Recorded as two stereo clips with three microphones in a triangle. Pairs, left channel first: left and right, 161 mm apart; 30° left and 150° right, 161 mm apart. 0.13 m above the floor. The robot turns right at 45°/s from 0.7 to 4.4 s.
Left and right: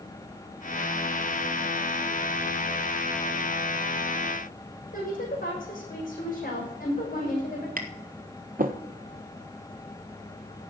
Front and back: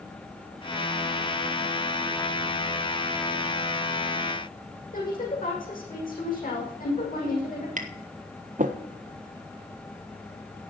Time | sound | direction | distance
4.9 | a woman speaking | 60° left | 6 m
7.8 | tapping | 115° right | 1.2 m